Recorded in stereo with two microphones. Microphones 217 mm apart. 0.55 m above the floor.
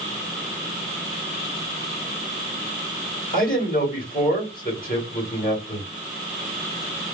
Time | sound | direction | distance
3.3 | a man speaking | 40° left (ahead or behind) | 1.8 m